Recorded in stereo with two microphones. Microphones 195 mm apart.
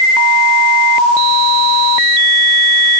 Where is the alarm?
No alarm in this recording.